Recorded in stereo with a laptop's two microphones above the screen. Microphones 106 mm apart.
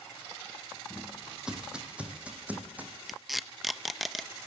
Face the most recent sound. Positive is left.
turn(degrees=0)  # may be behind; listen again after turning